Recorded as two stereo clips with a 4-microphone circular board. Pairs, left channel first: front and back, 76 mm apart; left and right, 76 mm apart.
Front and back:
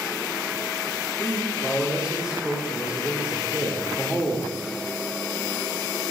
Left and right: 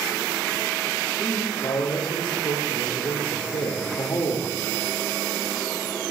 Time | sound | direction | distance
1.2 | a man speaking | 100° left | 2.5 m